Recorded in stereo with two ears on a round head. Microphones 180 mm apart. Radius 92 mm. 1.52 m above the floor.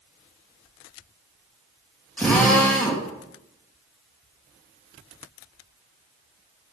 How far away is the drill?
About 3 m.